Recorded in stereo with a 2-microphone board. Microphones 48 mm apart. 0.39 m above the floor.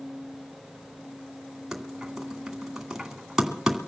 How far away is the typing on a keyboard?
About 2.5 m.